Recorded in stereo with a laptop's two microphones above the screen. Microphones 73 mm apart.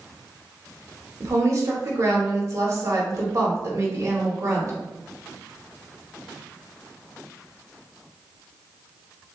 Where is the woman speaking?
40° right (ahead or behind), 1.0 m.